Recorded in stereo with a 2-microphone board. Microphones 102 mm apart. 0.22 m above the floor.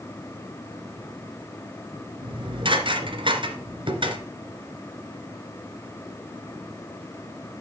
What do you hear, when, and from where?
2.2 s dishes clattering: 55° right (ahead or behind), 2 m